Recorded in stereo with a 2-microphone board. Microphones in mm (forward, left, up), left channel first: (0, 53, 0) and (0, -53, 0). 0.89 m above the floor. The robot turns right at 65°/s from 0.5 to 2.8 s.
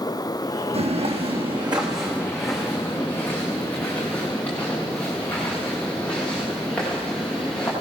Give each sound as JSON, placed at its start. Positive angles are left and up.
{"t": 0.7, "sound": "footsteps", "side_deg": -75, "distance_m": 3.5}